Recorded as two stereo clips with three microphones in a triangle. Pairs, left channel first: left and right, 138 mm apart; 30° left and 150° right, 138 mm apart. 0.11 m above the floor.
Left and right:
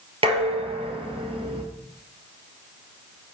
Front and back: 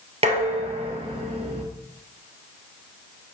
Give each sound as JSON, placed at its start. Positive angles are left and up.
{"t": 0.2, "sound": "dishes clattering", "azimuth_deg": -125, "distance_m": 1.4}